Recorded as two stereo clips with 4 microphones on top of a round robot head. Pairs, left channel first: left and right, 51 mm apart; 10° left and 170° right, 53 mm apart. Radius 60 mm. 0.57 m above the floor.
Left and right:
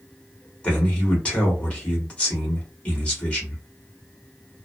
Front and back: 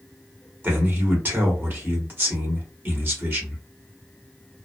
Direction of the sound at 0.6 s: 150° left.